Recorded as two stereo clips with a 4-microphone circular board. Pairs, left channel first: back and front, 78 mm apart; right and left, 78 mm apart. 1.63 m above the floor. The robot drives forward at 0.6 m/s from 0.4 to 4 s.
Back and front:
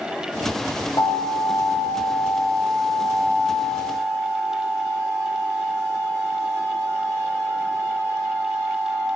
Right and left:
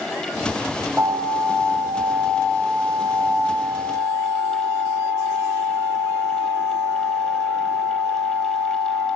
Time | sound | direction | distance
1.0 | an alarm | 175° left | 3 m